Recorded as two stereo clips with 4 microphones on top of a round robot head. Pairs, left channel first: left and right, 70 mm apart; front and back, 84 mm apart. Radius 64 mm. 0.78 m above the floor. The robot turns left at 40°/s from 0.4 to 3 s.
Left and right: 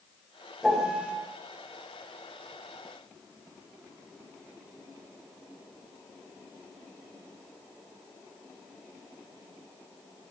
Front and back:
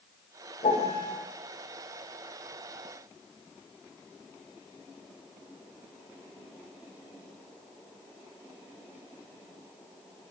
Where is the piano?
Straight ahead, 4 m; by 1.1 s 20° right, 4 m.